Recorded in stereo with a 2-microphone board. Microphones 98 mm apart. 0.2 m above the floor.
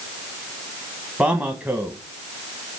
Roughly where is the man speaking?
Centre.